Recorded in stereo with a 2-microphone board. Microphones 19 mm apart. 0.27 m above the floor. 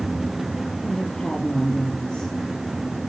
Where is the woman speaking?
55° left (ahead or behind), 5 m; by 2.3 s 50° left (ahead or behind), 5.5 m.